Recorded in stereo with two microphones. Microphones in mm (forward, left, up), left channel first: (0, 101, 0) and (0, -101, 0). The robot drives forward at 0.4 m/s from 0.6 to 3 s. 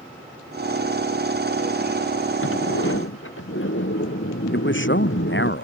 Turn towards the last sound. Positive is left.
turn(degrees=65)  # may be behind; listen again after turning